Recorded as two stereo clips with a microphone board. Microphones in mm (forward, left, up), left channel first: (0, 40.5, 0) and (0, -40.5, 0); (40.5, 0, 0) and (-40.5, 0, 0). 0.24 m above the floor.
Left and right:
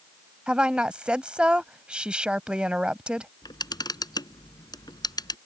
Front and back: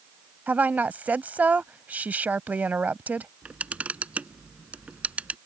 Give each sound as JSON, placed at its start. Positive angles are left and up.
{"t": 0.5, "sound": "a woman speaking", "azimuth_deg": -150}
{"t": 3.4, "sound": "a camera shutter", "azimuth_deg": 110}